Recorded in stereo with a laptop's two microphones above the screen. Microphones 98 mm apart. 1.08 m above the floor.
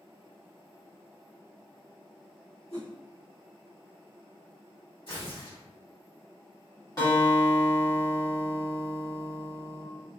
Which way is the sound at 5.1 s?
55° left (ahead or behind).